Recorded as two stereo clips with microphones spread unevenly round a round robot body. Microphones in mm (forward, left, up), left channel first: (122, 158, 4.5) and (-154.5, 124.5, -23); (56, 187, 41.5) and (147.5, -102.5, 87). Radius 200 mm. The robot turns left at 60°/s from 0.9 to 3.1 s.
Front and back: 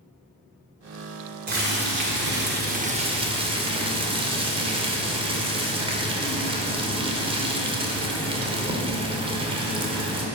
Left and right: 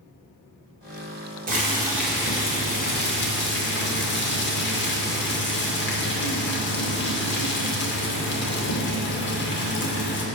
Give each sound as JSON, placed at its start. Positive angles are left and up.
{"t": 1.5, "sound": "boiling", "azimuth_deg": -135, "distance_m": 1.9}